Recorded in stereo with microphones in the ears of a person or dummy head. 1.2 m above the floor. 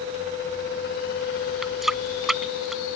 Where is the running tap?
Centre (ahead or behind).